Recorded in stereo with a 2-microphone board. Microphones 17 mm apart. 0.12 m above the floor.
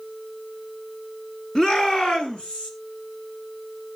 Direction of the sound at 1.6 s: 30° left (ahead or behind).